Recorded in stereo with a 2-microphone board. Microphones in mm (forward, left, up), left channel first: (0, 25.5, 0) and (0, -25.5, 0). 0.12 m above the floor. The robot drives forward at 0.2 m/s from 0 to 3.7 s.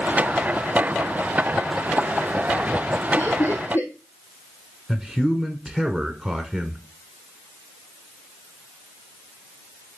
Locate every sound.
3.2 s laughter: 60° left (ahead or behind), 3.5 m
4.9 s a man speaking: 15° right (ahead or behind), 1.1 m